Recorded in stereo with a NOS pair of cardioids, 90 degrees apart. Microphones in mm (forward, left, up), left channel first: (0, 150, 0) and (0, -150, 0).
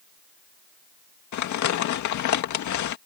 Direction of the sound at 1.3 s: 70° left.